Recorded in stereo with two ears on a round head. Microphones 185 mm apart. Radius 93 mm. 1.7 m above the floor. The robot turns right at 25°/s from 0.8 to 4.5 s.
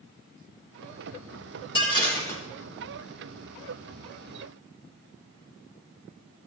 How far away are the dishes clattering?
About 5 m.